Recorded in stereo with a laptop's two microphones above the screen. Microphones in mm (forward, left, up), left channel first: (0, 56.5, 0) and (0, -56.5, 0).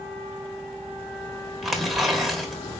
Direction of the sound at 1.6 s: Centre (ahead or behind).